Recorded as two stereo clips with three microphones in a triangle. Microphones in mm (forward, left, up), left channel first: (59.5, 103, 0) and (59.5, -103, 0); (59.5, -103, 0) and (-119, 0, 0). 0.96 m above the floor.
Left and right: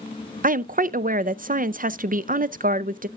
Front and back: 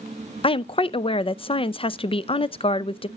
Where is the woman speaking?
80° right, 0.5 m.